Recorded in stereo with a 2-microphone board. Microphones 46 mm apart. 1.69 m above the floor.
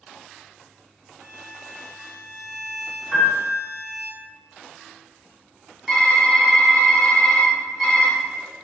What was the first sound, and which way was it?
A violin, 70° right (ahead or behind).